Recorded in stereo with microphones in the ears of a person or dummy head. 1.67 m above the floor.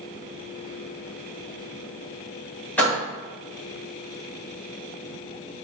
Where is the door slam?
10° left (ahead or behind), 1.5 m.